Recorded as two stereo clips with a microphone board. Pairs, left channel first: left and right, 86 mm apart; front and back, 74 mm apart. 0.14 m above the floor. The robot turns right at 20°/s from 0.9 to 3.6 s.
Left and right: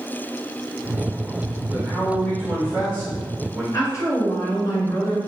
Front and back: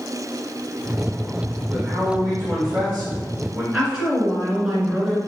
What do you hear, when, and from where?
1.7 s a man speaking: 155° left, 1.3 m; by 3.6 s 165° right, 1.3 m
3.7 s a woman speaking: 110° left, 1.5 m